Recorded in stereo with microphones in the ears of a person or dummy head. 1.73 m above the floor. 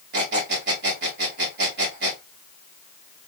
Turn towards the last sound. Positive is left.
turn(degrees=-55)  # may be behind; listen again after turning